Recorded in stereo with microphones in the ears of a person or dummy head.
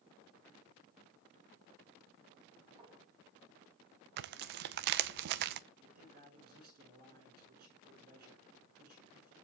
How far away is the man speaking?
About 6.5 m.